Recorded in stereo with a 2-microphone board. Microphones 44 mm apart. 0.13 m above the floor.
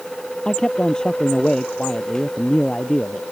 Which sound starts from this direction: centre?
A man speaking, at 0.5 s.